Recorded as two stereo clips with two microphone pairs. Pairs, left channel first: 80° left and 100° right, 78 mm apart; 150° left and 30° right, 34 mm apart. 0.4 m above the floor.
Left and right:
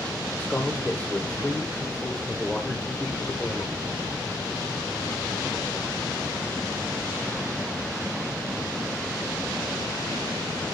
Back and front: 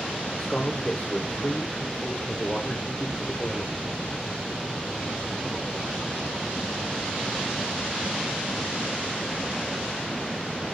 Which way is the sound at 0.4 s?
135° left.